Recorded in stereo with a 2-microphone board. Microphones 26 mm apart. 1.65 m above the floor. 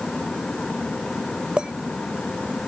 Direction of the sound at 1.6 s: 45° right (ahead or behind).